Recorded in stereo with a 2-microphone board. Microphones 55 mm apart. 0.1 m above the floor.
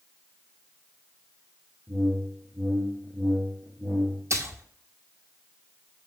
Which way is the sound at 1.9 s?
35° right (ahead or behind).